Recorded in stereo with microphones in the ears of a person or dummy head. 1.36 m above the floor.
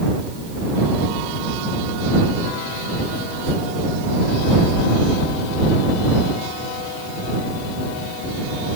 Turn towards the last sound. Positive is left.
No sound to turn to.